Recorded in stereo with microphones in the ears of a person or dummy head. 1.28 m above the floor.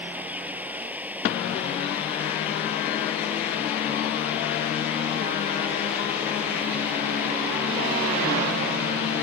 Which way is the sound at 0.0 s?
10° right (ahead or behind).